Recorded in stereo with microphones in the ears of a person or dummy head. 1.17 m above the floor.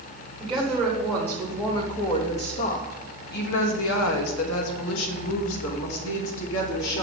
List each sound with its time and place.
0.4 s a woman speaking: centre (ahead or behind), 1.8 m; by 7.0 s 65° left (ahead or behind), 2.5 m